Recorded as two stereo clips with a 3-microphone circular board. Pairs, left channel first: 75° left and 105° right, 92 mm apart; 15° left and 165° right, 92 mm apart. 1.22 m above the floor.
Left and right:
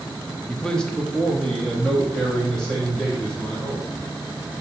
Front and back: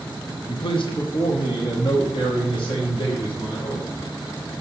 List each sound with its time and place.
0.5 s a man speaking: 5° right, 0.6 m